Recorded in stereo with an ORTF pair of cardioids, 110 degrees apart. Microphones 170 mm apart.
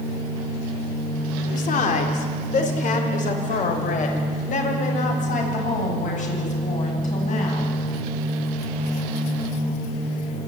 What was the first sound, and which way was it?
A woman speaking, 55° left.